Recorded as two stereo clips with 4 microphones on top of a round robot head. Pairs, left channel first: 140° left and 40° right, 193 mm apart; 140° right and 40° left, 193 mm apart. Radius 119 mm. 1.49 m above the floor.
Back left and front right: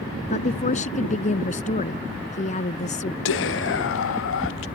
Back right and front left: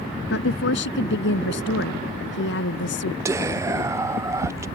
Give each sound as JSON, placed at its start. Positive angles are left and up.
{"t": 0.3, "sound": "a woman speaking", "azimuth_deg": -165}
{"t": 3.2, "sound": "whispering", "azimuth_deg": 115}